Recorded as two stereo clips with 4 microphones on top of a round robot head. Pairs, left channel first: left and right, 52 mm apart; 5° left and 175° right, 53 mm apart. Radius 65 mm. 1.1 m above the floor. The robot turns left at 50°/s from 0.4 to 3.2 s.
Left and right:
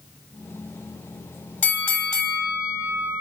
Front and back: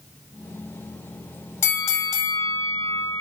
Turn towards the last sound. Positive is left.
turn(degrees=-35)